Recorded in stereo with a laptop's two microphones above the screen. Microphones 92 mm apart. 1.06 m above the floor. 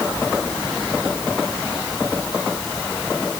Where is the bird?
No bird in this recording.